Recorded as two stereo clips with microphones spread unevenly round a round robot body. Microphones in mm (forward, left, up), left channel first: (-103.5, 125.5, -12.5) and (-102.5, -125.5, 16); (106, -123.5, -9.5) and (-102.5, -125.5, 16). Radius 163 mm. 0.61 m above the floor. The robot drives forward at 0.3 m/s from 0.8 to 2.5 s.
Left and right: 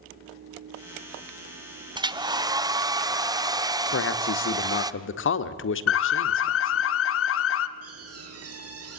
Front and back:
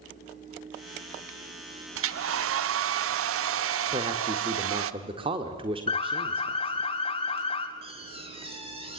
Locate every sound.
1.9 s a hair dryer: 165° right, 0.8 m; by 4.9 s 170° right, 1.0 m
3.9 s a man speaking: 105° left, 1.6 m
5.9 s an alarm: 65° left, 1.0 m
7.8 s a door slam: 115° right, 6 m